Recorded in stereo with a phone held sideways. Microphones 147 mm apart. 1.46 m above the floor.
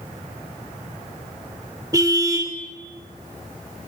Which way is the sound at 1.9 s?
25° right (ahead or behind).